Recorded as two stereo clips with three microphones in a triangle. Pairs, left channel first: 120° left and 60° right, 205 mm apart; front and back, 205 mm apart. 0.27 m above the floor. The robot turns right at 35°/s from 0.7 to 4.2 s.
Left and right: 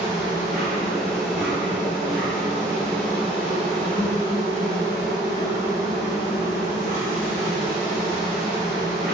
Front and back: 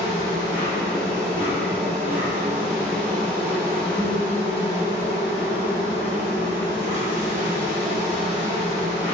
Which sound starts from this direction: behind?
An insect, at 0.0 s.